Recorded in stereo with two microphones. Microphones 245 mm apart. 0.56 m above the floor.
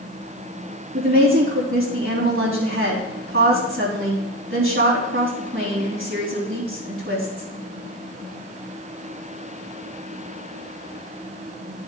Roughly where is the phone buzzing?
I don't hear a phone buzzing.